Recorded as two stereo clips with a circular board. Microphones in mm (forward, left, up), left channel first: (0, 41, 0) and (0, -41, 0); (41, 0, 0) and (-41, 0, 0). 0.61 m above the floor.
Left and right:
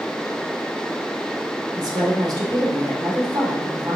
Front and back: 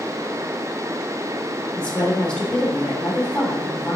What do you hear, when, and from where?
1.8 s a woman speaking: 75° right, 2.5 m